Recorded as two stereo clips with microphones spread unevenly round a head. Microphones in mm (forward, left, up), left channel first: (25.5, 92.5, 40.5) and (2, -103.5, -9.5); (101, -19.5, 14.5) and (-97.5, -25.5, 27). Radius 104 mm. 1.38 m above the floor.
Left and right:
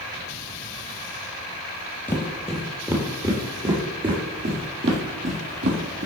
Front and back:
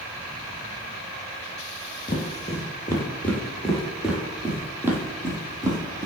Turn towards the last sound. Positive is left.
turn(degrees=-115)